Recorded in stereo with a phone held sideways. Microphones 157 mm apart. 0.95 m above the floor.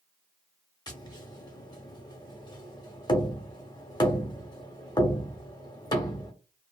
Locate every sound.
0.9 s tapping: 25° left (ahead or behind), 0.9 m